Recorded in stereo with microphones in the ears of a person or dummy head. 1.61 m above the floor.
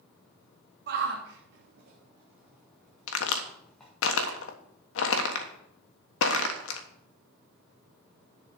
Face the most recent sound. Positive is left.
turn(degrees=80)